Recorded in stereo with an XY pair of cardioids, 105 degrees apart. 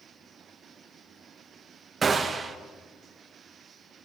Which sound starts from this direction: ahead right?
A gunshot, at 2.0 s.